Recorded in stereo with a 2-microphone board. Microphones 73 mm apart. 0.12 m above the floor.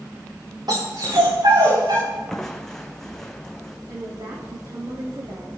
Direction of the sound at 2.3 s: 5° left (ahead or behind).